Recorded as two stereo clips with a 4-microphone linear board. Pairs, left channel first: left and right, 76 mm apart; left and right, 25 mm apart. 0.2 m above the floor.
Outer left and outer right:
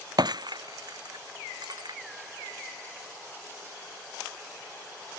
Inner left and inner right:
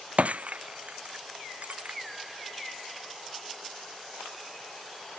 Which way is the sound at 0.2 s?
65° right (ahead or behind).